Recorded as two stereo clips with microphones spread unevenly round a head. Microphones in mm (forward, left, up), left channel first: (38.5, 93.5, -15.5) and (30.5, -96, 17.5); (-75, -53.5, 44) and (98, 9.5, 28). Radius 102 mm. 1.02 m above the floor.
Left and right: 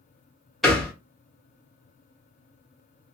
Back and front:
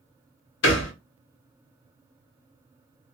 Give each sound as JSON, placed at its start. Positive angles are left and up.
{"t": 0.6, "sound": "a thud", "azimuth_deg": 180, "distance_m": 0.8}